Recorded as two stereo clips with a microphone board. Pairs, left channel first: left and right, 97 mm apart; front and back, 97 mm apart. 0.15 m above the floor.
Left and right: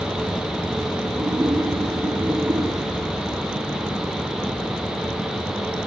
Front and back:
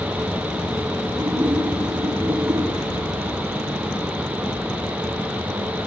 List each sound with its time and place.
1.2 s a splash: 140° right, 7 m